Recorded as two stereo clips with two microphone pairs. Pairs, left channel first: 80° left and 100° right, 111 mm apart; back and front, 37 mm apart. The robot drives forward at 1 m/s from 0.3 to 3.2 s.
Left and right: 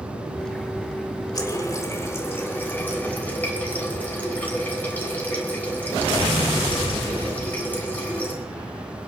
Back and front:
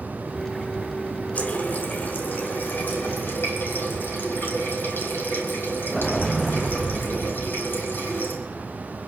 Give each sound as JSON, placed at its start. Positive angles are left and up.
{"t": 1.4, "sound": "a running tap", "azimuth_deg": 135, "distance_m": 1.9}